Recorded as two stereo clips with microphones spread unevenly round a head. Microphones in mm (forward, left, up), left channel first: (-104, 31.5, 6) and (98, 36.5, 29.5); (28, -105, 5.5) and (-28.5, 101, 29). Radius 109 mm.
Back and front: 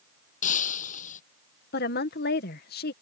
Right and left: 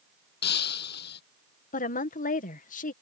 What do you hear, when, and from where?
0.4 s breaking glass: 120° right
1.7 s a woman speaking: 130° right